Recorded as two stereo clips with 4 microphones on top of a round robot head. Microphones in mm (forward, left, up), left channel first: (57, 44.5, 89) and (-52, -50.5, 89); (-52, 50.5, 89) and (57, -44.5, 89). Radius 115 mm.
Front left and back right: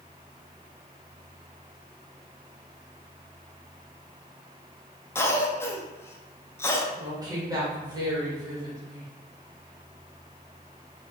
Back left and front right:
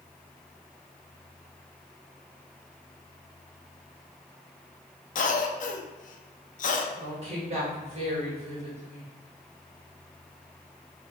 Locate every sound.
5.2 s a cough: 115° left, 0.7 m
6.9 s a woman speaking: 75° right, 1.6 m